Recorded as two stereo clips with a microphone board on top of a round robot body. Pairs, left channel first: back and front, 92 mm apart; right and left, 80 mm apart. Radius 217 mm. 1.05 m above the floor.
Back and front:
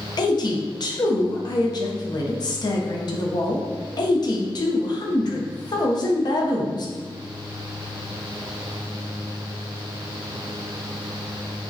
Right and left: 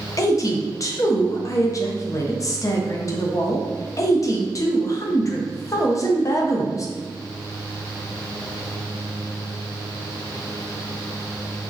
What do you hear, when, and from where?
0.2 s a woman speaking: 140° right, 0.7 m